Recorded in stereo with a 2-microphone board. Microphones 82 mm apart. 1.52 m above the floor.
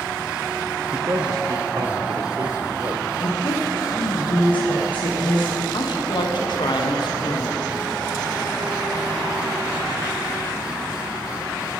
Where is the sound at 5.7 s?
65° left (ahead or behind), 1.1 m.